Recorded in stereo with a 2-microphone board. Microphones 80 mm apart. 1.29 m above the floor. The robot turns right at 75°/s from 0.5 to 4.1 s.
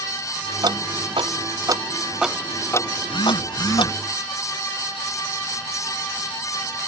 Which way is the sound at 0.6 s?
55° right (ahead or behind).